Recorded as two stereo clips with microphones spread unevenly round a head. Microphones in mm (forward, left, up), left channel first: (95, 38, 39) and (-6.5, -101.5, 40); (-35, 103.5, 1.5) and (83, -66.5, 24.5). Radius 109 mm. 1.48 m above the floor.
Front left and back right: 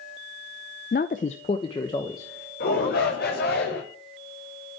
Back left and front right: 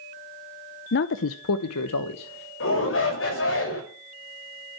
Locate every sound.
0.9 s a man speaking: 95° left, 0.5 m; by 2.5 s 135° left, 1.3 m
2.6 s a shout: 100° left, 6.5 m